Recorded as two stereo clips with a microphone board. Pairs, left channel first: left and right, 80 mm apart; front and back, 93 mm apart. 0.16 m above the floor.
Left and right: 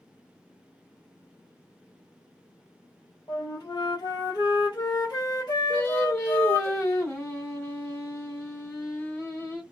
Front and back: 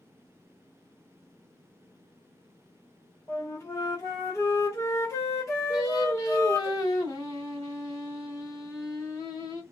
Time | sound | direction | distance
3.3 | a flute | 60° left | 1.7 m
5.7 | singing | 40° left | 2.5 m